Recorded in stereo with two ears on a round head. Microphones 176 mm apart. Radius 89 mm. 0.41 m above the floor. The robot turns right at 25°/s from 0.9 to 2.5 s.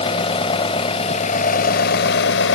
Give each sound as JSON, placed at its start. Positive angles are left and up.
{"t": 0.0, "sound": "an engine running", "azimuth_deg": 30, "distance_m": 1.0}